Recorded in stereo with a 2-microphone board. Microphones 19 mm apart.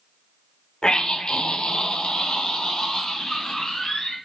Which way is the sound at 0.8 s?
50° left (ahead or behind).